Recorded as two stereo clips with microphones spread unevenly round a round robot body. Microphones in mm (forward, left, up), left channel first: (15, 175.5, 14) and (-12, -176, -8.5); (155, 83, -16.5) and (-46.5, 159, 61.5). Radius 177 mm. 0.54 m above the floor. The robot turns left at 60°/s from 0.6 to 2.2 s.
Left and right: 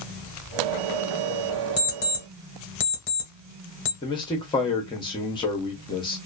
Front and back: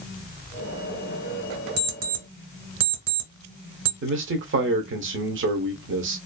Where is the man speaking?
160° left, 0.7 m.